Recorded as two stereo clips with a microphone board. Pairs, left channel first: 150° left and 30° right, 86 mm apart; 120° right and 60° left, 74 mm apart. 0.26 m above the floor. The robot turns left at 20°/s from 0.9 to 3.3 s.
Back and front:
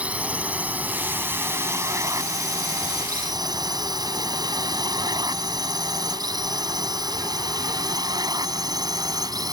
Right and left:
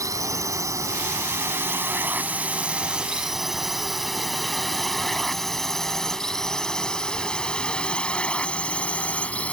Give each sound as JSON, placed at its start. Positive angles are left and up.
{"t": 0.0, "sound": "a drone", "azimuth_deg": 40}